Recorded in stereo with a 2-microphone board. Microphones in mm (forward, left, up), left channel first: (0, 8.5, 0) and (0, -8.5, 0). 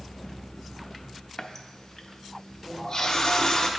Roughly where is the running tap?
Left.